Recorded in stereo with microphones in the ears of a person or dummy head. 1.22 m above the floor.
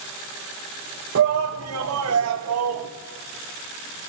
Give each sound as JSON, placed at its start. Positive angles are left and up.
{"t": 1.1, "sound": "a shout", "side_deg": -65, "distance_m": 1.6}